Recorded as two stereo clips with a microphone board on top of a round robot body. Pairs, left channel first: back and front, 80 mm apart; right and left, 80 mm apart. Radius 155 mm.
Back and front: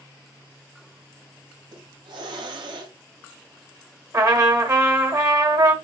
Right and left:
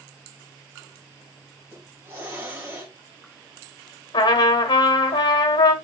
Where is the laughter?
No laughter in this recording.